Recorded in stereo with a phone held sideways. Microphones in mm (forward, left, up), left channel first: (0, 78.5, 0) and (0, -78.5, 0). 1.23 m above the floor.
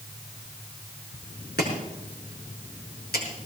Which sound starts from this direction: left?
Chopping, at 1.6 s.